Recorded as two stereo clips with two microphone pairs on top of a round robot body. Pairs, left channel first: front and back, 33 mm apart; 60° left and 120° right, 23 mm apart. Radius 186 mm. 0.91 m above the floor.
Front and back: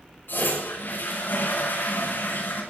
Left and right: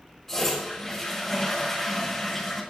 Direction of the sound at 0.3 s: 10° right.